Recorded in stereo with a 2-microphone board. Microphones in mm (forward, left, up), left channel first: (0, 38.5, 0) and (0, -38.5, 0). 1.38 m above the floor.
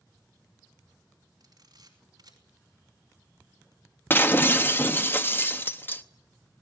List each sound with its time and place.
1.4 s a camera shutter: 60° right (ahead or behind), 4 m
4.1 s breaking glass: 30° left (ahead or behind), 0.9 m